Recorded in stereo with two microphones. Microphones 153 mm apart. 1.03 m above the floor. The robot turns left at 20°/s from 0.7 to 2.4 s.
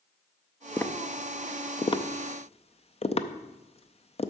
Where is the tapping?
15° left (ahead or behind), 0.5 m; by 4.3 s 45° left (ahead or behind), 0.5 m.